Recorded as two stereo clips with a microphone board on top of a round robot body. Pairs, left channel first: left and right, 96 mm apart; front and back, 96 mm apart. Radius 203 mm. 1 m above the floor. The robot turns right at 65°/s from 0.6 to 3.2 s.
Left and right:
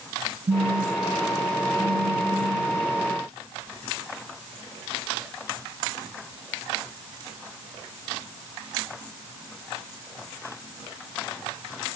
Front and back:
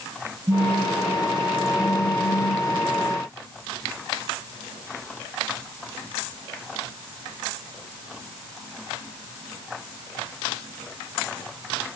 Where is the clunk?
I don't hear a clunk.